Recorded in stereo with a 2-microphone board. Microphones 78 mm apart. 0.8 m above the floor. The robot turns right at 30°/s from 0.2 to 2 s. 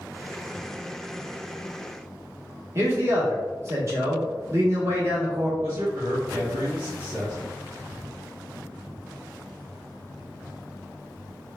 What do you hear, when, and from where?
2.8 s a man speaking: 35° right (ahead or behind), 1.0 m
5.6 s a man speaking: 35° right (ahead or behind), 1.2 m